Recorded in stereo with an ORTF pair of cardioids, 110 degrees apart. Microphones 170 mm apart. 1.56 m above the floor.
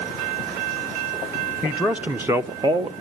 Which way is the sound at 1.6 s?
5° right.